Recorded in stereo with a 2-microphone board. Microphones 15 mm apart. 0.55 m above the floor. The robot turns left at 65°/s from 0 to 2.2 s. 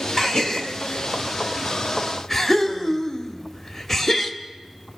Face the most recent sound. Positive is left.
turn(degrees=15)  # may be behind; listen again after turning